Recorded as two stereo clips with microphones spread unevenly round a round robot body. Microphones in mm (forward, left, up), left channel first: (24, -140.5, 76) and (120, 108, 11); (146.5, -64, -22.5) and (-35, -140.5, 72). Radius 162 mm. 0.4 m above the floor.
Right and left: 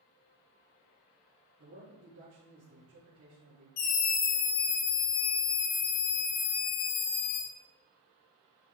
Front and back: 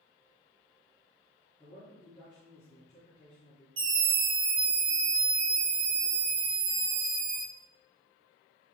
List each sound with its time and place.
1.6 s a man speaking: 115° left, 5 m
3.8 s a scream: 135° right, 1.5 m